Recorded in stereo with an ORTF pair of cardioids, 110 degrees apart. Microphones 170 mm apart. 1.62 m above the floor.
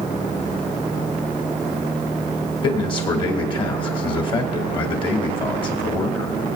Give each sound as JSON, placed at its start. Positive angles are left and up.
{"t": 2.6, "sound": "a man speaking", "azimuth_deg": 30, "distance_m": 2.5}